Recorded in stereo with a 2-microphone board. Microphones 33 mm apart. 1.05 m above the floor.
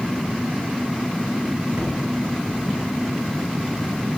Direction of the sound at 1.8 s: 75° right (ahead or behind).